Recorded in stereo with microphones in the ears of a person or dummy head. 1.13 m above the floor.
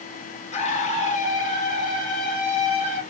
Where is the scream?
35° left (ahead or behind), 1.0 m; by 3.0 s 40° left (ahead or behind), 2 m.